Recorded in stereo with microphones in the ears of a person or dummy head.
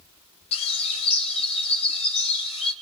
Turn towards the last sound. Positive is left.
turn(degrees=40)  # may be behind; listen again after turning